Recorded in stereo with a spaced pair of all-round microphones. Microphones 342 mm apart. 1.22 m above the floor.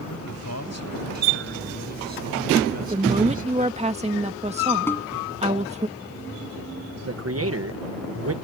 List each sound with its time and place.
0.1 s a man speaking: 45° left (ahead or behind); by 3.8 s 60° left (ahead or behind)
2.8 s a woman speaking: 20° right (ahead or behind)
4.9 s a snare drum: 5° left (ahead or behind)
7.1 s a man speaking: 45° right (ahead or behind)